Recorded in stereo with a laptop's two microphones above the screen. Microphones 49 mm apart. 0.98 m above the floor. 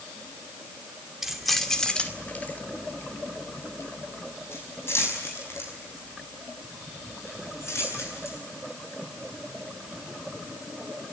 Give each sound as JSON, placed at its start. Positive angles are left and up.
{"t": 1.2, "sound": "keys jangling", "side_deg": -5, "distance_m": 2.0}